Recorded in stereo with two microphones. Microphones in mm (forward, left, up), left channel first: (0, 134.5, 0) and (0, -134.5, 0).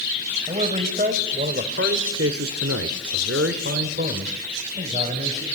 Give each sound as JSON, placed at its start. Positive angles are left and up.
{"t": 0.5, "sound": "a man speaking", "side_deg": -25, "distance_m": 3.0}